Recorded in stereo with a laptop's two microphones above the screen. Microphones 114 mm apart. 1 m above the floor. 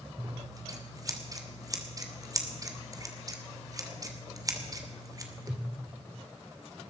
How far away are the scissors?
About 2.5 m.